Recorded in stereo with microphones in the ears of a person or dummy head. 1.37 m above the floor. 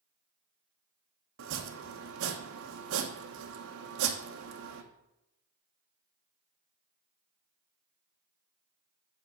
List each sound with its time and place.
1.4 s chopping: 65° right (ahead or behind), 1.1 m